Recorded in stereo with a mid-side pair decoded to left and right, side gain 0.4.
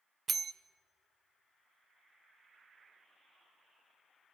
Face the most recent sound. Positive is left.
turn(degrees=-55)